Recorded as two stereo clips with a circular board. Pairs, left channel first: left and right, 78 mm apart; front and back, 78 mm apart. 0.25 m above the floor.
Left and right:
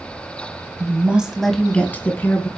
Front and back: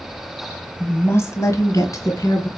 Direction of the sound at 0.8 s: 55° right.